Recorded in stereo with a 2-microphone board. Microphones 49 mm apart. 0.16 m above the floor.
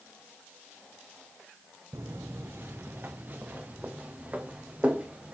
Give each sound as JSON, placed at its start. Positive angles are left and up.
{"t": 1.9, "sound": "footsteps", "side_deg": -65, "distance_m": 0.6}